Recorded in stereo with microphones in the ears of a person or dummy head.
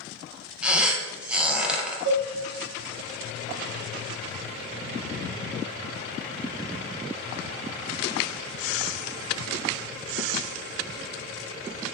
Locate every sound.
0.6 s a squeak: 5° right (ahead or behind), 0.5 m
2.0 s a cowbell: 65° right (ahead or behind), 1.8 m